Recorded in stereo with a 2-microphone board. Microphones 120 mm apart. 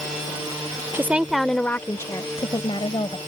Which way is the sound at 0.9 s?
20° right (ahead or behind).